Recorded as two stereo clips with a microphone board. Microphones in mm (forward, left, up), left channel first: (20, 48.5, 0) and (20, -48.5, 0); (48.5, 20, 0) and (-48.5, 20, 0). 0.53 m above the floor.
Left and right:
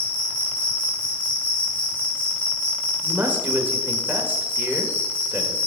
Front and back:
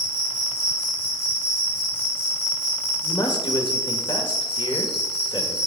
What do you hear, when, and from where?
0.0 s an insect: 65° left, 3 m
3.0 s a man speaking: 20° right, 1.5 m